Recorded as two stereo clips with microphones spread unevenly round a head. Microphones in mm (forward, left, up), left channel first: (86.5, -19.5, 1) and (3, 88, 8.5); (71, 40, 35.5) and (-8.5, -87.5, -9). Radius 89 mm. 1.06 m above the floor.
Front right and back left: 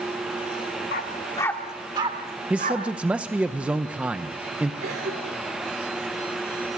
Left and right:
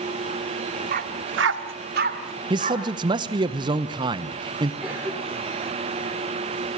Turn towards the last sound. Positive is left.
turn(degrees=160)